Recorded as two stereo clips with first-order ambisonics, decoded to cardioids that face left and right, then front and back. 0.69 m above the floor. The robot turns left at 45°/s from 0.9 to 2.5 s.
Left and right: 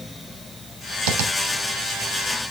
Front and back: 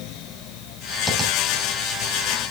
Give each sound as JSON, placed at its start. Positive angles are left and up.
{"t": 1.1, "sound": "tapping", "azimuth_deg": -80, "distance_m": 3.0}